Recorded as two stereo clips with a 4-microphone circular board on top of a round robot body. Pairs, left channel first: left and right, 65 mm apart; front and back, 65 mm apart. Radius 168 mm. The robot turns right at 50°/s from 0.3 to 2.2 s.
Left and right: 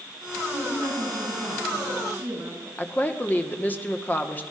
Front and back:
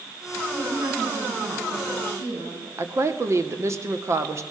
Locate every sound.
0.5 s a woman speaking: 110° left, 8 m; by 2.7 s 165° right, 8 m
2.8 s a woman speaking: 150° left, 2.0 m